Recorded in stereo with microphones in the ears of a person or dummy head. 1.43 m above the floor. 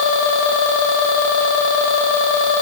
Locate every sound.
Only background noise.